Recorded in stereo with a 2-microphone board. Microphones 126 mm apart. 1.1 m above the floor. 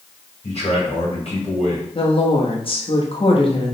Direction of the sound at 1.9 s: 45° left (ahead or behind).